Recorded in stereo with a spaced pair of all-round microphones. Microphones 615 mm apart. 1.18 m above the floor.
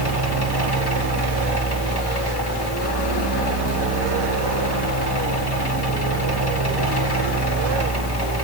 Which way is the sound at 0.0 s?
40° left (ahead or behind).